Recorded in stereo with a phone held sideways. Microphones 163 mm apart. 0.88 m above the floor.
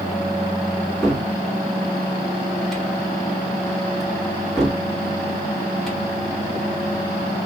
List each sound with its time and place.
1.0 s a cupboard door: centre (ahead or behind), 2 m